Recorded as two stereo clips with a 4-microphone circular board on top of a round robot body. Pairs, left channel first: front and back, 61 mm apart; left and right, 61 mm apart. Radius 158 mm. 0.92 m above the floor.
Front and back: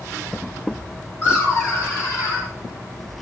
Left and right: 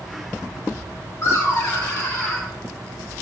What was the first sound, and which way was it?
Laughter, 45° left.